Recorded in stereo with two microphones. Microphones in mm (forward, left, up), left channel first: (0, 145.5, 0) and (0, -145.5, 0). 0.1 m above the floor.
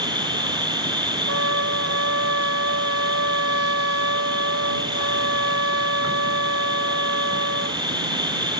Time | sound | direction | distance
0.0 | an insect | 15° right (ahead or behind) | ?
1.3 | a trumpet | 50° right (ahead or behind) | ?